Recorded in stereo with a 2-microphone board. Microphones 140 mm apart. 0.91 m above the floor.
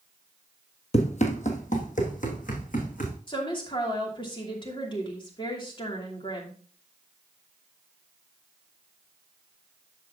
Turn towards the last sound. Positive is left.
turn(degrees=35)  # may be behind; listen again after turning